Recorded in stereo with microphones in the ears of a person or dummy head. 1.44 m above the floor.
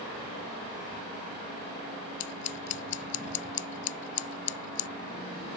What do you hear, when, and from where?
2.2 s scissors: 40° left (ahead or behind)